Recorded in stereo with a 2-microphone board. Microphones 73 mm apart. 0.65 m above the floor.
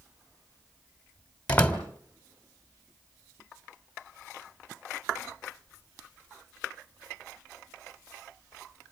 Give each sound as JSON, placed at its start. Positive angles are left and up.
{"t": 1.5, "sound": "a door slam", "side_deg": 20, "distance_m": 2.5}